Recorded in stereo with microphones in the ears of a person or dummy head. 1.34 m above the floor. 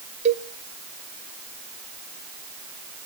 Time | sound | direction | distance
0.2 | a cowbell | 35° right (ahead or behind) | 0.8 m